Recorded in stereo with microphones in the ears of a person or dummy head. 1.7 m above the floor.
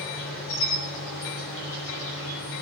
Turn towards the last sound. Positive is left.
turn(degrees=65)  # may be behind; listen again after turning